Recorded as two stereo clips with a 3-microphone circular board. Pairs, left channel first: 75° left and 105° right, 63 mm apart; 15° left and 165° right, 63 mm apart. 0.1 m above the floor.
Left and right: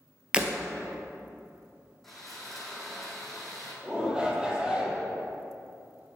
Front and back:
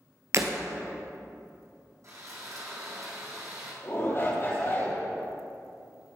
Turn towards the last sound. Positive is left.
turn(degrees=-30)